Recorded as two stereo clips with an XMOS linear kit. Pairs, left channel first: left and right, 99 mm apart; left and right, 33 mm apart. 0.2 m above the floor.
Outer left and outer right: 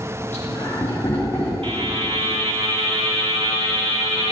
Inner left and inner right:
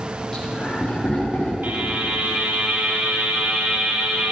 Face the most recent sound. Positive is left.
turn(degrees=-65)  # may be behind; listen again after turning